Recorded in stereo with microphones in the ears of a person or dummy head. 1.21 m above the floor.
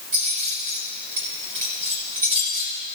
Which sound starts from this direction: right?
Keys jangling, at 0.1 s.